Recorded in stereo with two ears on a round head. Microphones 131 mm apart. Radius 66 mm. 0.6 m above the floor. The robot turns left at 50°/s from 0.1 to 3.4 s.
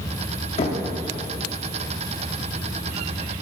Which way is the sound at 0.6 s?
45° left (ahead or behind).